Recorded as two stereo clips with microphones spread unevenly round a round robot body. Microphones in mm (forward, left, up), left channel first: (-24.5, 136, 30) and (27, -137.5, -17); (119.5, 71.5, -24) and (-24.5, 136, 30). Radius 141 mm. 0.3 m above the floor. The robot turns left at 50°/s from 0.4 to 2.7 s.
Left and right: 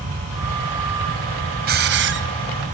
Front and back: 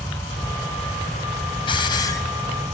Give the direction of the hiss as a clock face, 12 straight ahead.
2 o'clock.